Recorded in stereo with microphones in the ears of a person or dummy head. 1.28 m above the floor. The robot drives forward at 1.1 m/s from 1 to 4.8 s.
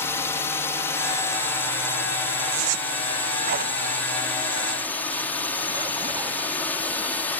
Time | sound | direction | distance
0.0 | a drone | 10° left (ahead or behind) | ?
2.5 | a zipper | 70° right (ahead or behind) | ?